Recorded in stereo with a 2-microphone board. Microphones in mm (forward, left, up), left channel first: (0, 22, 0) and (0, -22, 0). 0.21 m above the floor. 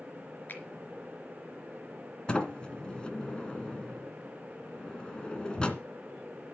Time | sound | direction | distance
0.5 | a finger snap | 45° left (ahead or behind) | 3.5 m
2.3 | a sliding door | 20° left (ahead or behind) | 2 m